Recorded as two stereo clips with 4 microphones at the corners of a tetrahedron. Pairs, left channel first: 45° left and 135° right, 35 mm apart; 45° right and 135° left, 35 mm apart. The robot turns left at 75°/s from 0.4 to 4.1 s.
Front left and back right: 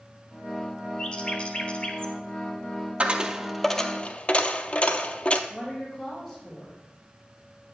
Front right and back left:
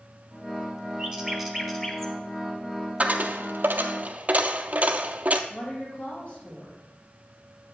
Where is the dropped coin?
Straight behind, 0.6 m; by 5.4 s 95° left, 0.6 m.